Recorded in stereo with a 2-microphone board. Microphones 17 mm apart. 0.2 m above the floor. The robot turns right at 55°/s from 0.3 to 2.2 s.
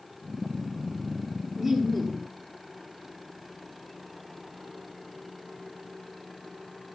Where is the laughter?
25° right, 4.5 m; by 2.3 s 10° left, 4.5 m.